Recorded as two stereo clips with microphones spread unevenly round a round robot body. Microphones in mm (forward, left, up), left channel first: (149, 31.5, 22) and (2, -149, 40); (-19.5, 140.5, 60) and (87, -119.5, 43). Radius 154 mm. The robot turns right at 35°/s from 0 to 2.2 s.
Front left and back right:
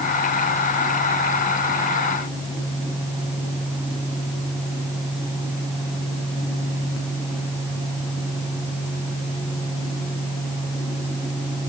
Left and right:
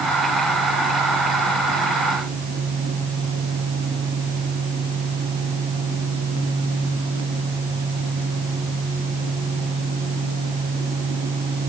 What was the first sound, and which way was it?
Only background noise.